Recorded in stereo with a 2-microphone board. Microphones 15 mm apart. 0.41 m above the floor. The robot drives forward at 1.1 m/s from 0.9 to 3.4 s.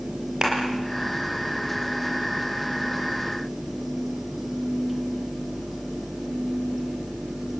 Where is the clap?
45° right (ahead or behind), 6.5 m.